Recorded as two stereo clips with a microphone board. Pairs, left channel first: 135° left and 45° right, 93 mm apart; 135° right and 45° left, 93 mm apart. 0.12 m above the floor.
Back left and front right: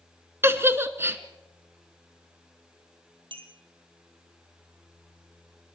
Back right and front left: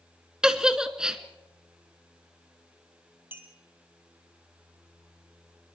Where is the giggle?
30° right, 1.0 m.